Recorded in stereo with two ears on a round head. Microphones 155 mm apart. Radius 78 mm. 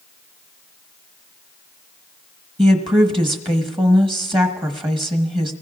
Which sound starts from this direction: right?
A woman speaking, at 2.6 s.